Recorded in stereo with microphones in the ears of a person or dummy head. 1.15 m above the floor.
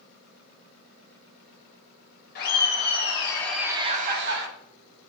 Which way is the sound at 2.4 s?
50° left (ahead or behind).